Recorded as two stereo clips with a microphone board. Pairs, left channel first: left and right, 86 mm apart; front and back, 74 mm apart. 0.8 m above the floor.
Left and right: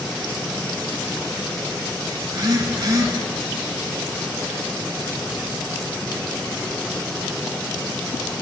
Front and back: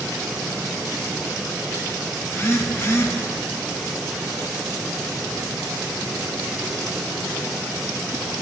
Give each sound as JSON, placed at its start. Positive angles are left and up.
{"t": 2.2, "sound": "a phone buzzing", "azimuth_deg": -50, "distance_m": 1.4}